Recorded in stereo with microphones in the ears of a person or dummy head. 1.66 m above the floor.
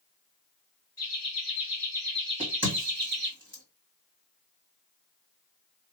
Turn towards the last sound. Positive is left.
turn(degrees=-15)  # may be behind; listen again after turning